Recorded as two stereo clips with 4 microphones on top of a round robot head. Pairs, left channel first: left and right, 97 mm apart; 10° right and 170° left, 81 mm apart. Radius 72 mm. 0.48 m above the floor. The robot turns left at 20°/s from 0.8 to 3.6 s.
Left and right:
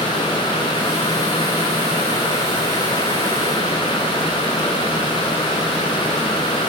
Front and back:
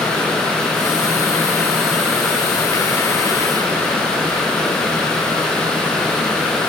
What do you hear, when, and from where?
Only background noise.